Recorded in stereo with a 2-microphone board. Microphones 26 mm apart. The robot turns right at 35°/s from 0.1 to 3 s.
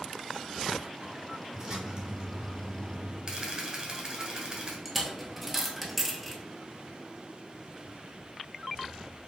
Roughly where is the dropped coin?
Centre.